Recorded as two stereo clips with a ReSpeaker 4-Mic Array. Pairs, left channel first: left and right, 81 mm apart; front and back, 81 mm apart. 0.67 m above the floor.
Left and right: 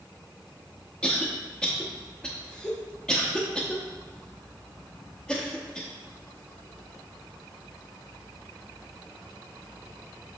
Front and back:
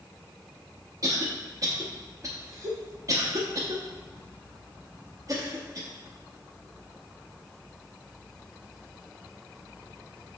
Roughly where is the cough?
Behind.